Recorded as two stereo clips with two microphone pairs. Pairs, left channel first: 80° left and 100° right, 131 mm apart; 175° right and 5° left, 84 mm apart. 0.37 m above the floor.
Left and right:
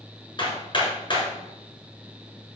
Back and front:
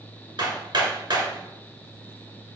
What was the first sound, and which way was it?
Hammering, 30° left.